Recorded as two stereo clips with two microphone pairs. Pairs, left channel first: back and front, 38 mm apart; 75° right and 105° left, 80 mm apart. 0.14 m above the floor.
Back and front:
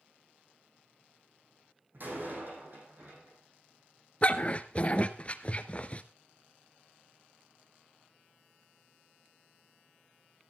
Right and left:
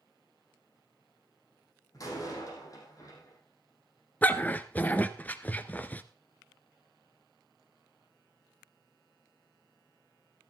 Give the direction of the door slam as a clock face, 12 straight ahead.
1 o'clock.